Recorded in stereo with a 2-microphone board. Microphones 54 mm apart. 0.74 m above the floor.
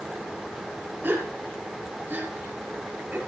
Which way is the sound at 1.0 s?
40° right (ahead or behind).